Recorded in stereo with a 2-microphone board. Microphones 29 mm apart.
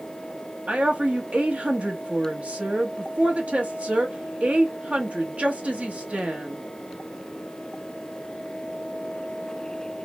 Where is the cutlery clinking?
I don't hear cutlery clinking.